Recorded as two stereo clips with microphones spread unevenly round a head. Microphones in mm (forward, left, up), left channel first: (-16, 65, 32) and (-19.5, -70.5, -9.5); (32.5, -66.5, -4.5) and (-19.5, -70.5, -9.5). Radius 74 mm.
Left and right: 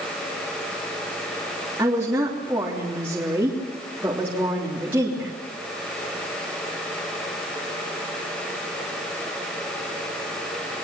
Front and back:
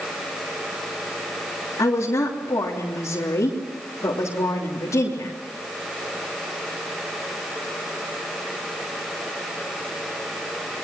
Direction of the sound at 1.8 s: 10° right.